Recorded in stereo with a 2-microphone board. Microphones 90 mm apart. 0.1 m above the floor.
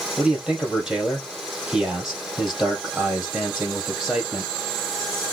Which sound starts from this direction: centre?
A man speaking, at 0.2 s.